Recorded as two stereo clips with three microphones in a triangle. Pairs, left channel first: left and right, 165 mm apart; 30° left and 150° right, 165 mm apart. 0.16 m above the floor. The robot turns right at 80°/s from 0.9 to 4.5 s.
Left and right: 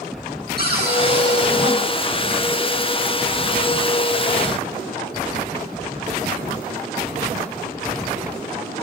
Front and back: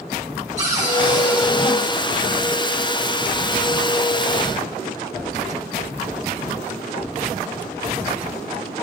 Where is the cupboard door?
105° right, 3.5 m; by 1.8 s 35° right, 3.5 m.